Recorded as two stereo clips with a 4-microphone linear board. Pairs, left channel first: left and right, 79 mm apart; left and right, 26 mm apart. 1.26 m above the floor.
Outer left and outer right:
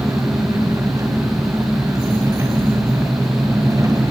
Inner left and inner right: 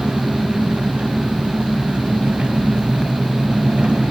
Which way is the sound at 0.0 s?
45° right (ahead or behind).